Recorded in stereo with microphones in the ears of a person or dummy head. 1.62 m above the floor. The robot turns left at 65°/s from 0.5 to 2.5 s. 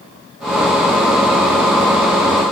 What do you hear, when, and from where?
Only background noise.